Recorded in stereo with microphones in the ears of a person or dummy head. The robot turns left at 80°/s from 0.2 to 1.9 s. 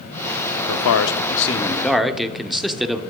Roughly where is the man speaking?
Left.